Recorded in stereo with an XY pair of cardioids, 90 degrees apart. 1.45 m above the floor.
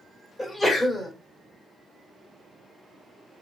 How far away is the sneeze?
About 1.2 m.